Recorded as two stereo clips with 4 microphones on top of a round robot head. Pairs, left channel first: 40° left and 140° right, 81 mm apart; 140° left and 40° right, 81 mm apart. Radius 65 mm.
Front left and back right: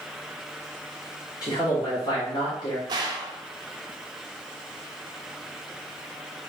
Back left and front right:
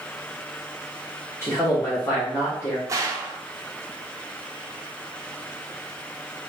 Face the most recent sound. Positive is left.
turn(degrees=-95)